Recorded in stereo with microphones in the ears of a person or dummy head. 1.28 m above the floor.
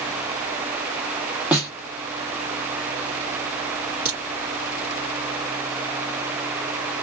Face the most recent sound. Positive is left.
turn(degrees=-15)  # may be behind; listen again after turning